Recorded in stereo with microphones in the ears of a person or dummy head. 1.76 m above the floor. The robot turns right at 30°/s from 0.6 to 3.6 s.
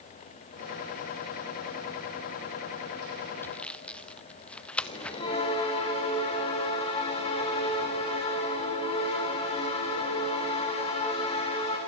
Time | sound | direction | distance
3.4 | sawing | 15° left (ahead or behind) | 0.8 m
4.8 | a bell | 30° left (ahead or behind) | 7 m